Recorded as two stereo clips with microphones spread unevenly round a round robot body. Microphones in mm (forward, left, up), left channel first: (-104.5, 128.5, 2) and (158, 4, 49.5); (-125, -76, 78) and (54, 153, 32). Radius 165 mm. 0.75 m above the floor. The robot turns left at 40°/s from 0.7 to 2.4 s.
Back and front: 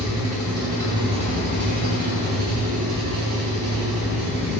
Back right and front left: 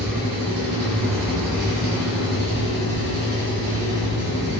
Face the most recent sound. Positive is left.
turn(degrees=-5)